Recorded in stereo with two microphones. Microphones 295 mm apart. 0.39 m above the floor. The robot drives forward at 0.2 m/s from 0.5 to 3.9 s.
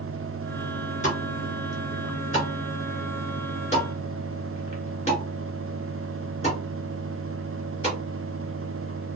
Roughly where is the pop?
Left.